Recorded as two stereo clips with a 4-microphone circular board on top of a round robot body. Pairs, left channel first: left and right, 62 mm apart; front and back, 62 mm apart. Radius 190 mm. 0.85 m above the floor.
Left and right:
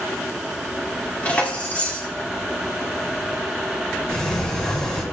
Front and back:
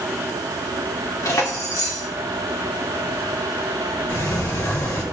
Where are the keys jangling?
25° left, 2.0 m.